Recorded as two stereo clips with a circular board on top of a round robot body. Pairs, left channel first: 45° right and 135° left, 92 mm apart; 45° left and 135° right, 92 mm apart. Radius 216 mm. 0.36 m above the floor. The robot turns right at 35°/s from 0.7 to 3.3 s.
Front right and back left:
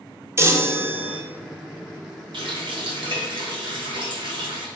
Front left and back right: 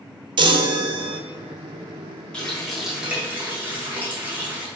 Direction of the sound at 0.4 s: 165° right.